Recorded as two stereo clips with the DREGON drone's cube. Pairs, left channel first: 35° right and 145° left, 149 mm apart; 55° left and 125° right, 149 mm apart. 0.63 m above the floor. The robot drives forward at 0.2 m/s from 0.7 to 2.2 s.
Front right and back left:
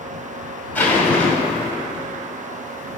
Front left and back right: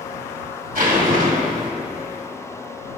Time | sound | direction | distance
0.8 | a zipper | 110° right | 2.5 m